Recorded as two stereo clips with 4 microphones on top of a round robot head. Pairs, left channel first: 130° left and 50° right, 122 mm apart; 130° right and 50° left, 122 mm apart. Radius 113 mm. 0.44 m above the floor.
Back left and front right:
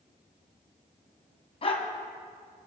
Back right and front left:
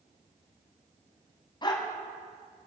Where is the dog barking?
175° left, 1.9 m.